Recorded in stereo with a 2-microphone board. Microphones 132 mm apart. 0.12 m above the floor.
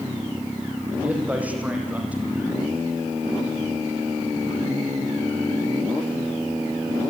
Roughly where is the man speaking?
Centre.